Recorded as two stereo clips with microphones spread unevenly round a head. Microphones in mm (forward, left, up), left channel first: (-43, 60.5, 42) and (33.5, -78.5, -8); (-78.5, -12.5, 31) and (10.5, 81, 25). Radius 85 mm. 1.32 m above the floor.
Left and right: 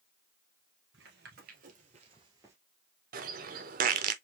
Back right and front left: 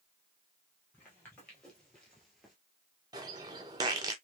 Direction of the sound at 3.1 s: 20° right.